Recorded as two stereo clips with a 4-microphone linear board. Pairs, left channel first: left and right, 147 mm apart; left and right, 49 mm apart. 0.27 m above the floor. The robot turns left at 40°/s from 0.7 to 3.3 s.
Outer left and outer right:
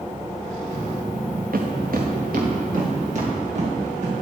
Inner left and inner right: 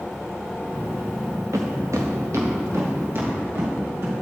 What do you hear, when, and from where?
1.5 s footsteps: 80° right, 1.9 m; by 4.1 s 55° right (ahead or behind), 4.5 m